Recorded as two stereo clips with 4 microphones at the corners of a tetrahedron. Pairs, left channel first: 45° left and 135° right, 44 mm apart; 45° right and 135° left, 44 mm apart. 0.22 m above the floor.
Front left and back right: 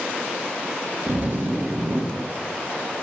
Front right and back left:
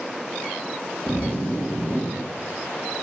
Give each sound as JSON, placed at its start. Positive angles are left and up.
{"t": 1.1, "sound": "a zipper", "azimuth_deg": -90, "distance_m": 3.0}